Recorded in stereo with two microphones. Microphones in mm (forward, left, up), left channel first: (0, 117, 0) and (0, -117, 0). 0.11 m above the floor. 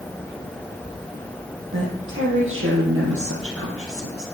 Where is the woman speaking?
55° right (ahead or behind), 4.5 m; by 4.2 s 65° right (ahead or behind), 3.5 m.